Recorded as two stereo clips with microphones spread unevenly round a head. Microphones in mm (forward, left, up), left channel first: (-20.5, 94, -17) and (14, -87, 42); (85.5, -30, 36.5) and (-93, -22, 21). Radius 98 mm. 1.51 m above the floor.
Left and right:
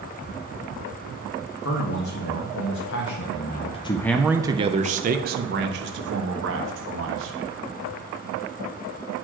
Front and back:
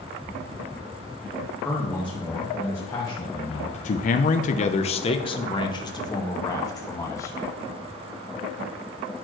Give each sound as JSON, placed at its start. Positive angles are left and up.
{"t": 1.6, "sound": "a man speaking", "azimuth_deg": 80, "distance_m": 1.5}